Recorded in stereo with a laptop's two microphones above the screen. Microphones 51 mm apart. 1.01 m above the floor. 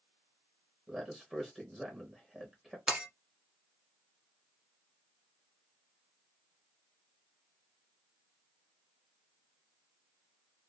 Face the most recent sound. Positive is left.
turn(degrees=-20)  # may be behind; listen again after turning